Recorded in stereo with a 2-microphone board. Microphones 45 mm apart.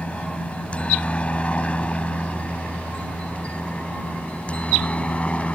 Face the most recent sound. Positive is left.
turn(degrees=30)  # may be behind; listen again after turning